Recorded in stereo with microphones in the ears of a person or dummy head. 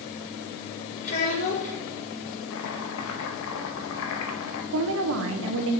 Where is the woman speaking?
60° right (ahead or behind), 0.8 m.